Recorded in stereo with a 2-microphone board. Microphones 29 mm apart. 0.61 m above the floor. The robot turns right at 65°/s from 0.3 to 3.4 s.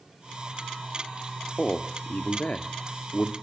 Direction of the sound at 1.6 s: 40° left.